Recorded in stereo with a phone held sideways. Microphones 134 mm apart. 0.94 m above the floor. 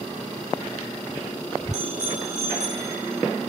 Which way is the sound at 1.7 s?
65° right (ahead or behind).